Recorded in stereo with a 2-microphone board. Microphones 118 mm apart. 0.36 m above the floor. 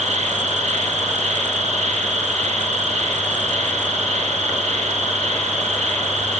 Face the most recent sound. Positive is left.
turn(degrees=-80)